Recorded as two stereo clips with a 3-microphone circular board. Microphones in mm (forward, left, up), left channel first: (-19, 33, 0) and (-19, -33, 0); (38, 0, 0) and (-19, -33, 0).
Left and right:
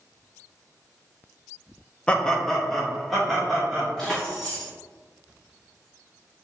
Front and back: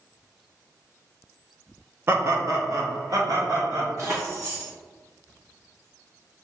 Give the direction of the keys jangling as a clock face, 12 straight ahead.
6 o'clock.